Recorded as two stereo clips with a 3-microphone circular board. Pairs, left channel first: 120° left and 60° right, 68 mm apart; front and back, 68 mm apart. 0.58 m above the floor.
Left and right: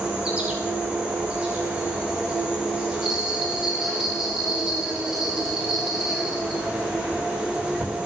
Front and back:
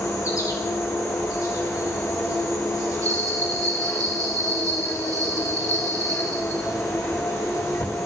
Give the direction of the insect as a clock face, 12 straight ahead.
12 o'clock.